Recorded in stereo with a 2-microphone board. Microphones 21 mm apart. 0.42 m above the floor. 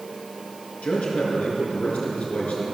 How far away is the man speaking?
About 5.5 m.